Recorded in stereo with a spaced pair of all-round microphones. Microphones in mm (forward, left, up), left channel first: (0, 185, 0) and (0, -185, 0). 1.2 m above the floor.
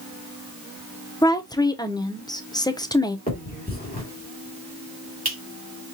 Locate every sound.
1.2 s a woman speaking: 10° left (ahead or behind), 0.5 m
3.3 s a finger snap: 25° left (ahead or behind), 2 m